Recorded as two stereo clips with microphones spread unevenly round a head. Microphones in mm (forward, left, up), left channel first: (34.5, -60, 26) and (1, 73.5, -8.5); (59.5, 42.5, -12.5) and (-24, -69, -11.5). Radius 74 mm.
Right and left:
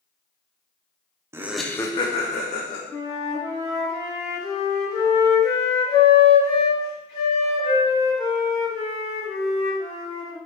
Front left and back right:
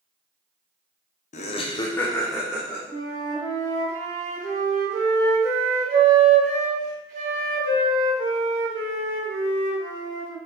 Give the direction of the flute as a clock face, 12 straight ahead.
4 o'clock.